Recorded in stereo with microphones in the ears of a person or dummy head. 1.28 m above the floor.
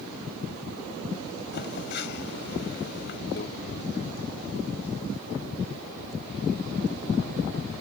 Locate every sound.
1.5 s a phone buzzing: 60° left (ahead or behind)
3.4 s a microwave: 55° left (ahead or behind)